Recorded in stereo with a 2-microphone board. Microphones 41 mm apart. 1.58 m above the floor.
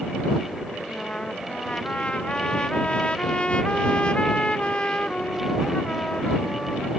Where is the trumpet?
30° left (ahead or behind).